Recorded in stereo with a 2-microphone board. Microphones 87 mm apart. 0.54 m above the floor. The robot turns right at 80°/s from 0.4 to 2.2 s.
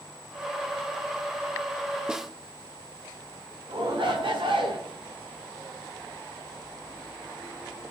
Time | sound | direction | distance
2.1 | a snare drum | 10° right (ahead or behind) | 0.7 m
3.7 | a shout | 75° right (ahead or behind) | 4.5 m